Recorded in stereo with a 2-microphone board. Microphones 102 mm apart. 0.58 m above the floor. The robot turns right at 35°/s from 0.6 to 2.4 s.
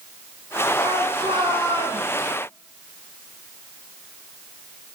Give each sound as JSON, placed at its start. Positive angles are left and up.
{"t": 0.8, "sound": "a shout", "azimuth_deg": -80, "distance_m": 6.5}